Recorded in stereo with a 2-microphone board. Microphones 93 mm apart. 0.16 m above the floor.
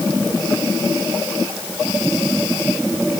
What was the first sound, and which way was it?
Only background noise.